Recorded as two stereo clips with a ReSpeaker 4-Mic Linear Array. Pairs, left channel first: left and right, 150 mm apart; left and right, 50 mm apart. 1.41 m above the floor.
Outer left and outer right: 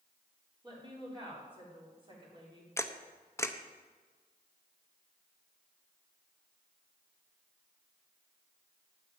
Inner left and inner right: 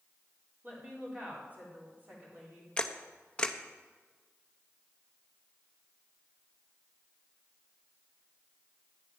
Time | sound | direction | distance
0.6 | a woman speaking | 30° right (ahead or behind) | 4 m
2.8 | a camera shutter | 20° left (ahead or behind) | 0.7 m